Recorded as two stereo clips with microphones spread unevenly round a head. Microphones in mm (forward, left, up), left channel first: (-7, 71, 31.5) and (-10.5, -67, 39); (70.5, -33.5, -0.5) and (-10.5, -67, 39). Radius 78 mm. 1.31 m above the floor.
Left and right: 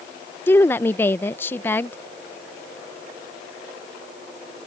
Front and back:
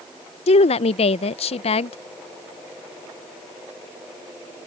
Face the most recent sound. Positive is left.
turn(degrees=10)